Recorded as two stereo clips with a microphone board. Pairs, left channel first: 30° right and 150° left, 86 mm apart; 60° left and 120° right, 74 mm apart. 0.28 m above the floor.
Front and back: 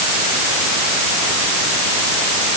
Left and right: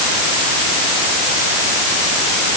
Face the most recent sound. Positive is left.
No sound to turn to.